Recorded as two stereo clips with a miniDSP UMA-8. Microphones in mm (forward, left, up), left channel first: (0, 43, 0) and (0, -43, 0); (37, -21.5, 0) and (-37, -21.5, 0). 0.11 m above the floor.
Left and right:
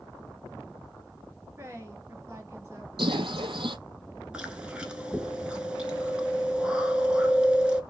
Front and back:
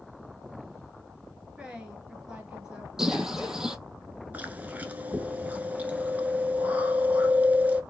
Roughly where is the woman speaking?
Right.